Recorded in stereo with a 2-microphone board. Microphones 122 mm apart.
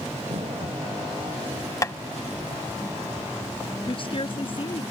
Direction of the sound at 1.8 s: 25° left (ahead or behind).